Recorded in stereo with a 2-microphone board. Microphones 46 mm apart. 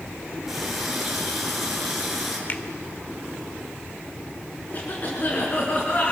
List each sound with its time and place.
0.5 s a running tap: 5° right (ahead or behind), 5 m
2.5 s a finger snap: 40° left (ahead or behind), 1.2 m
4.7 s a cough: 35° left (ahead or behind), 4.5 m